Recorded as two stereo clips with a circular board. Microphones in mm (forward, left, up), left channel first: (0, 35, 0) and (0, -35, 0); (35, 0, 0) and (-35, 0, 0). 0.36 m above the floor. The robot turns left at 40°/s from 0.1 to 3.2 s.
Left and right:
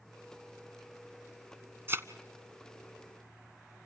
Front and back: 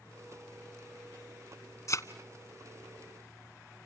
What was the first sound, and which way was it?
A thud, 40° right.